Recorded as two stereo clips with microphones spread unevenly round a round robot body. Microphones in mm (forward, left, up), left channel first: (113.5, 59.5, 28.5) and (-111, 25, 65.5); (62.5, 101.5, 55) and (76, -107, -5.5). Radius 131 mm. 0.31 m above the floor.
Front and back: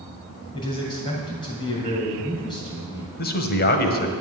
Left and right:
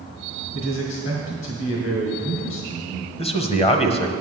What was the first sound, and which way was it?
A man speaking, 70° left.